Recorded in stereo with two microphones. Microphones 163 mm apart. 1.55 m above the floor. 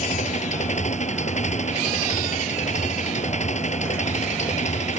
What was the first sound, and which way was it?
An engine running, 45° left (ahead or behind).